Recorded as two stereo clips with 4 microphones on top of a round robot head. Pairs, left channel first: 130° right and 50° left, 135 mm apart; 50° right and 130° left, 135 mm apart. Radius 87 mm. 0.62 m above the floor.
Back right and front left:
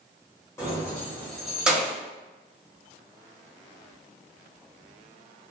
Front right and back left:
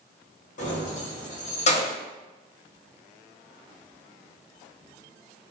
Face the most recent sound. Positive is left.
turn(degrees=-20)